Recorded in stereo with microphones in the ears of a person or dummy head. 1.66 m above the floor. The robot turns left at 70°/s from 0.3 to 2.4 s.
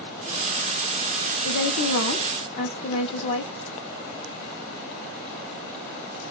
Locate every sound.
1.4 s a woman speaking: 105° left, 0.6 m; by 3.5 s 40° left, 0.6 m